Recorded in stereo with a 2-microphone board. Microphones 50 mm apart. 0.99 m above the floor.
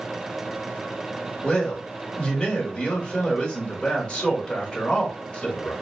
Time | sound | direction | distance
1.4 | a man speaking | 20° left (ahead or behind) | 1.6 m